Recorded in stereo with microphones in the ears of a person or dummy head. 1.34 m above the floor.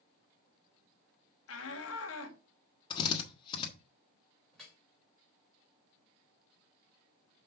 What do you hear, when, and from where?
1.5 s a shout: 75° left (ahead or behind), 1.8 m
2.9 s a drill: 15° left (ahead or behind), 1.4 m
4.5 s dripping: 10° left (ahead or behind), 3.5 m